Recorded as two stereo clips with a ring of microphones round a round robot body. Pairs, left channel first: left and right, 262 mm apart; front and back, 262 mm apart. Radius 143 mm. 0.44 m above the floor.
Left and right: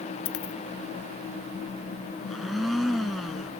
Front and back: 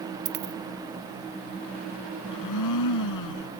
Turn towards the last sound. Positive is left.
turn(degrees=0)